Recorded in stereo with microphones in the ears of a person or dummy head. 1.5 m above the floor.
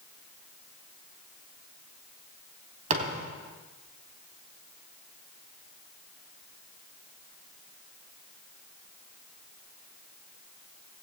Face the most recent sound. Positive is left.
turn(degrees=-45)  # may be behind; listen again after turning